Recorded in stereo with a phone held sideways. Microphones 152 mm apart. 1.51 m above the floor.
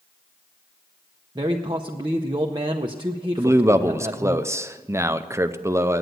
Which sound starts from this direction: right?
A man speaking, at 1.4 s.